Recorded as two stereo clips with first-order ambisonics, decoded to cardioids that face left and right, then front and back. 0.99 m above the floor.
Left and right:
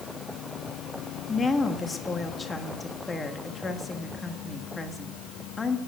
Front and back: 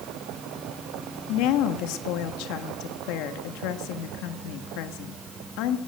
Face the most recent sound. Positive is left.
turn(degrees=15)